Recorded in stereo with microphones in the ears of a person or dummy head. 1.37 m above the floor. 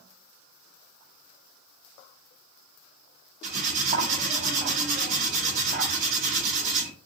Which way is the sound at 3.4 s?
50° right (ahead or behind).